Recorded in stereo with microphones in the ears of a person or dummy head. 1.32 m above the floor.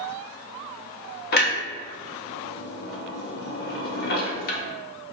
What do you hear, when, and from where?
1.3 s a clunk: 50° left (ahead or behind), 0.7 m